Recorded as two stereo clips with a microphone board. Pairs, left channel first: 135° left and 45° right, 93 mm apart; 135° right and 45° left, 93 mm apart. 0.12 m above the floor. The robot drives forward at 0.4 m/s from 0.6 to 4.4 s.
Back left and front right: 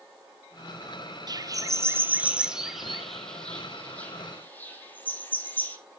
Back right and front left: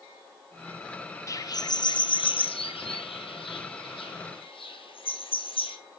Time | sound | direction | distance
1.3 | a bird | 85° right | 0.6 m